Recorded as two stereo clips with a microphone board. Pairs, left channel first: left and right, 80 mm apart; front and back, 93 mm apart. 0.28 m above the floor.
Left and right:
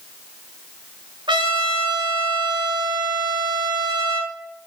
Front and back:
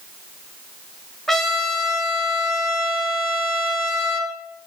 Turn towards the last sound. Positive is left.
turn(degrees=-85)